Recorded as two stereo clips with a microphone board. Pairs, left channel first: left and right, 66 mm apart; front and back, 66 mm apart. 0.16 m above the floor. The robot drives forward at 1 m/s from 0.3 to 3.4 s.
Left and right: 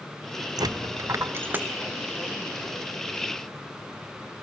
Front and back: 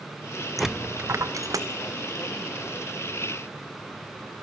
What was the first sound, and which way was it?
A dropped coin, 90° right.